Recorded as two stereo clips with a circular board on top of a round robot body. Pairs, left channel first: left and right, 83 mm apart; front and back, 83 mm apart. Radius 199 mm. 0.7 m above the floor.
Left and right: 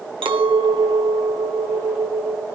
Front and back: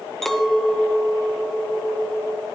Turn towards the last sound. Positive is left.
turn(degrees=-85)